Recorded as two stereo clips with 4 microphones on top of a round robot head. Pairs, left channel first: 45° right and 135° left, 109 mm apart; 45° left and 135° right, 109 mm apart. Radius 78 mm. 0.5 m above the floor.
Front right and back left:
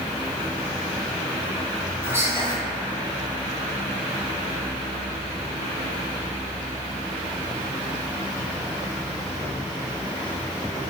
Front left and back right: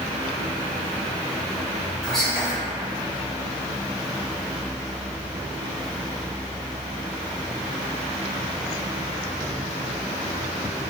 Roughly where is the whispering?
Behind left.